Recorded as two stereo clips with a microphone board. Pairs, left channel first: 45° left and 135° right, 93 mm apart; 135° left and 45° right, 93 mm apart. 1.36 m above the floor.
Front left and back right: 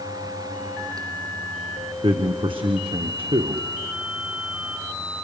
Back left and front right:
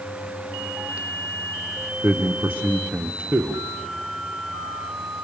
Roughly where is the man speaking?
Behind right.